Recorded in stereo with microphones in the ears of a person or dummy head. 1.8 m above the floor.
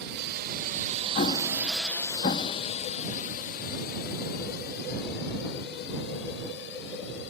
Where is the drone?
70° right (ahead or behind); by 7.3 s 70° left (ahead or behind).